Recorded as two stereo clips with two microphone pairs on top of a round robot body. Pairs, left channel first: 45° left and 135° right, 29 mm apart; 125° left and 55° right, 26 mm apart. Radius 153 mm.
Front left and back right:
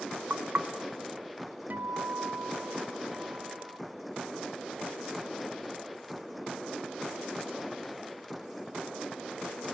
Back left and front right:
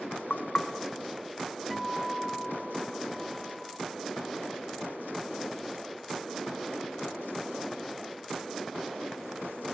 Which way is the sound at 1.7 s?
140° right.